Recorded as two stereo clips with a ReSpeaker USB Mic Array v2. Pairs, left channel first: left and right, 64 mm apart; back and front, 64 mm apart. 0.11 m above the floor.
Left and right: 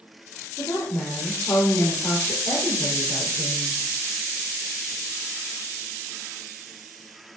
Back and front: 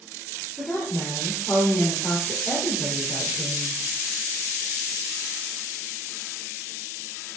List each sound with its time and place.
0.6 s a woman speaking: 130° left, 3 m